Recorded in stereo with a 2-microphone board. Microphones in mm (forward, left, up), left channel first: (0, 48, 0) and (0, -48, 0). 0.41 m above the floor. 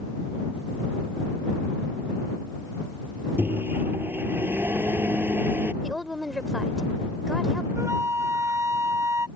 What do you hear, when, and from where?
3.4 s a microwave: 20° right (ahead or behind)
5.8 s a woman speaking: centre (ahead or behind)
7.8 s a flute: 35° right (ahead or behind)